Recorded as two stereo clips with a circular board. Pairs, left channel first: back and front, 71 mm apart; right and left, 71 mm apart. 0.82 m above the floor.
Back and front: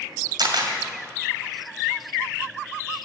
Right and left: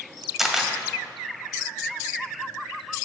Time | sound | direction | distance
0.4 | a camera shutter | straight ahead | 2.0 m